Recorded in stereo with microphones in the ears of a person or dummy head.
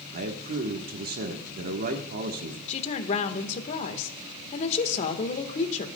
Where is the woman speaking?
40° left (ahead or behind), 1.5 m.